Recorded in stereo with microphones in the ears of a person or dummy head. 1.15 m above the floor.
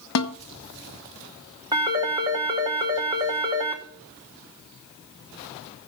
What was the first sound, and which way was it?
A snare drum, 80° left.